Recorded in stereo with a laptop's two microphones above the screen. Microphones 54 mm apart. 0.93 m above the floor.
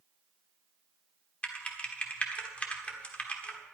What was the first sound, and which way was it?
Typing on a keyboard, 25° left (ahead or behind).